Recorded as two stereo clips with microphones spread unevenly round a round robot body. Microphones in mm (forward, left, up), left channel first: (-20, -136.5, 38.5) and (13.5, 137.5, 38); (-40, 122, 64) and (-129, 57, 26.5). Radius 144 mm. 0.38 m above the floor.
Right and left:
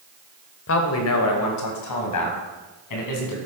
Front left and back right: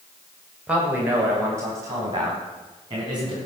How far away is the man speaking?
About 2.0 m.